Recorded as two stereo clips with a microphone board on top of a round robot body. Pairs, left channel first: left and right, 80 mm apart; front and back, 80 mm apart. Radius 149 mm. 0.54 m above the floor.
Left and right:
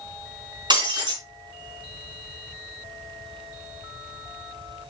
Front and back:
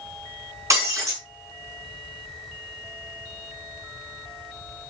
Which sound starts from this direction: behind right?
Breaking glass, at 0.7 s.